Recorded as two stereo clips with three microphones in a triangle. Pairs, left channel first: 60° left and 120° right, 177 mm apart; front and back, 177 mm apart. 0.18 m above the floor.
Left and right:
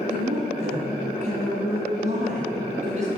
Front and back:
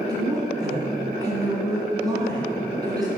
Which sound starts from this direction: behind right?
A woman speaking, at 0.1 s.